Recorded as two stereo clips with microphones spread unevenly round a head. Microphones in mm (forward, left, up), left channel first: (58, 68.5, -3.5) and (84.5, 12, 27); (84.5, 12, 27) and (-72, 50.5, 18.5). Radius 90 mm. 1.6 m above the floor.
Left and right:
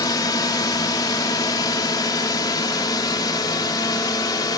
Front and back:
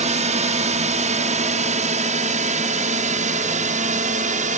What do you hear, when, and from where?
0.0 s a drone: 120° left; by 4.6 s 125° left